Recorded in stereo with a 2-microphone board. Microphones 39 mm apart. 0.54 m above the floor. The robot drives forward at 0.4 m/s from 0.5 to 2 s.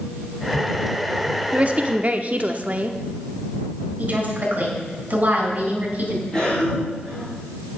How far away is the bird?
I don't hear a bird.